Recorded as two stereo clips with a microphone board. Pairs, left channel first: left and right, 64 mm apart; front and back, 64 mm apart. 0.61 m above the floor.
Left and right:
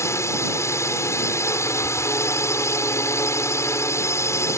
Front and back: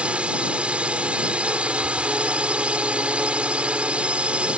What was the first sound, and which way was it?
A drone, 115° left.